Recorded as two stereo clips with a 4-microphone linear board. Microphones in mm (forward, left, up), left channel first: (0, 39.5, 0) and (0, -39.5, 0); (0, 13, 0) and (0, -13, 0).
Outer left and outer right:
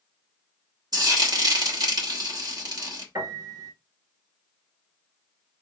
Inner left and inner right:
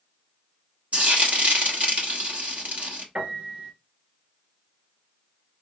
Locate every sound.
0.9 s frying: 55° right (ahead or behind), 1.2 m
3.1 s a piano: 50° right (ahead or behind), 1.6 m